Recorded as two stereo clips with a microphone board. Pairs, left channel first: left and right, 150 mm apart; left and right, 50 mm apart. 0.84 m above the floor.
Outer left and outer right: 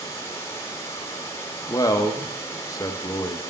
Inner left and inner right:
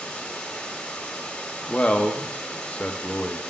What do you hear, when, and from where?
0.0 s running water: 20° left (ahead or behind), 1.1 m
1.7 s a man speaking: 25° left (ahead or behind), 0.6 m